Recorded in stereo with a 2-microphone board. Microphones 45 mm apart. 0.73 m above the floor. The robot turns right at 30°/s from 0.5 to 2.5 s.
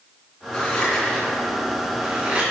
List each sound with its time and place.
0.5 s scissors: 25° left (ahead or behind), 3 m; by 2.4 s 30° right (ahead or behind), 3 m